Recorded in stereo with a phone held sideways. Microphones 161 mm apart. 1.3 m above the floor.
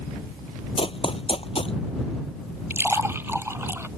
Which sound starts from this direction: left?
Running footsteps, at 0.8 s.